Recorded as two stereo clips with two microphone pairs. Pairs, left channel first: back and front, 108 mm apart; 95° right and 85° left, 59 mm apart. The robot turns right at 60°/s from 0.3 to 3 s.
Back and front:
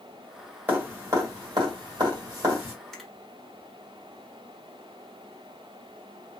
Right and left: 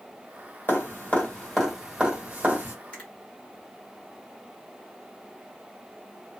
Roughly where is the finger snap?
Right.